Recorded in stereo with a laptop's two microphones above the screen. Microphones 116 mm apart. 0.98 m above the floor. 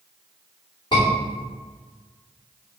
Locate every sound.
0.9 s a scream: 45° left (ahead or behind), 2.5 m